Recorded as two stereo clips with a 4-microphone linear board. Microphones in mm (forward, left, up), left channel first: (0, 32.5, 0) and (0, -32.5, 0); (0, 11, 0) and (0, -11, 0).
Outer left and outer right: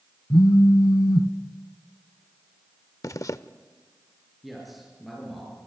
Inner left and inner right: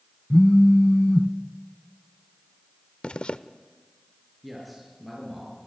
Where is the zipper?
55° left (ahead or behind), 0.6 m.